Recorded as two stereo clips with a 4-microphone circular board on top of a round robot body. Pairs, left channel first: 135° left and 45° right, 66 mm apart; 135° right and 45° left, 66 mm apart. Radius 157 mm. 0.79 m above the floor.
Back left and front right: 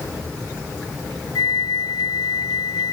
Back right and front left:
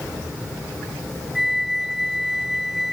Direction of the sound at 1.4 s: 130° left.